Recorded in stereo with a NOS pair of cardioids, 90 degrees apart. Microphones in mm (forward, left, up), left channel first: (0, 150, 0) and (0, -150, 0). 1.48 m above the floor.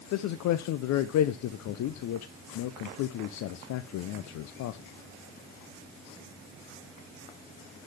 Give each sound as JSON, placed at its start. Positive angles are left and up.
{"t": 0.1, "sound": "a man speaking", "azimuth_deg": 70, "distance_m": 0.6}